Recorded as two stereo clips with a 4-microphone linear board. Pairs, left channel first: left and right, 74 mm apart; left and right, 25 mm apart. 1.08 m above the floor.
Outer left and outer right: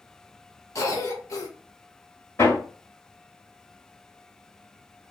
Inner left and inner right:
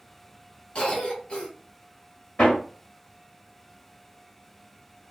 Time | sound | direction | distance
0.8 | a cough | 45° left (ahead or behind) | 1.1 m
2.4 | hammering | 45° left (ahead or behind) | 1.3 m